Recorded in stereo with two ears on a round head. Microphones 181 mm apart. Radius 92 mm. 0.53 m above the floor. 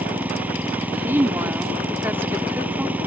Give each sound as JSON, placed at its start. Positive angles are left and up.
{"t": 0.0, "sound": "an engine running", "side_deg": -10}
{"t": 1.0, "sound": "a woman speaking", "side_deg": -10}